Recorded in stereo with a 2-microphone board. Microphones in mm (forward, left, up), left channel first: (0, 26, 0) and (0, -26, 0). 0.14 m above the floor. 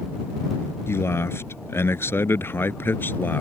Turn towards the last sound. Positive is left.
turn(degrees=40)  # may be behind; listen again after turning